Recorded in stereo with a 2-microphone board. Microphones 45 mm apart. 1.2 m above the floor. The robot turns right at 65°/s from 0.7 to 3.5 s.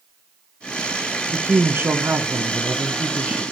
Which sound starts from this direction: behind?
A woman speaking, at 1.3 s.